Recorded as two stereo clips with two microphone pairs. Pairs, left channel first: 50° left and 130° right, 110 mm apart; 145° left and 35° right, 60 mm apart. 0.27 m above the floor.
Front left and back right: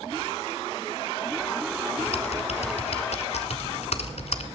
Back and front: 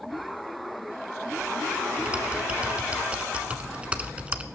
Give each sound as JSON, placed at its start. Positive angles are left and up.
{"t": 2.0, "sound": "typing on a keyboard", "azimuth_deg": 40, "distance_m": 0.9}